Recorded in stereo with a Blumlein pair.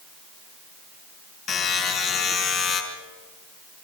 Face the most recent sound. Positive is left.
turn(degrees=30)